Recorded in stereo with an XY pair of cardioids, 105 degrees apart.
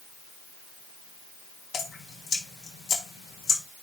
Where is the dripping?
50° left, 2.5 m.